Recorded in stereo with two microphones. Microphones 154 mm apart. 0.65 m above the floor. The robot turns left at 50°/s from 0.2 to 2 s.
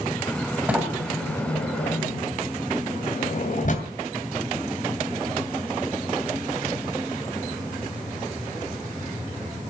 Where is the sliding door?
10° right (ahead or behind), 2.5 m; by 3.9 s 55° left (ahead or behind), 2.5 m.